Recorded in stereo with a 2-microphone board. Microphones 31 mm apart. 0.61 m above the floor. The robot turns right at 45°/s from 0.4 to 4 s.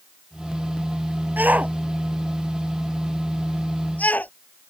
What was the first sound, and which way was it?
A shout, 65° right (ahead or behind).